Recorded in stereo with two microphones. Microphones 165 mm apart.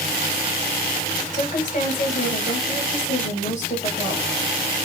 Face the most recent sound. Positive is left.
turn(degrees=50)  # may be behind; listen again after turning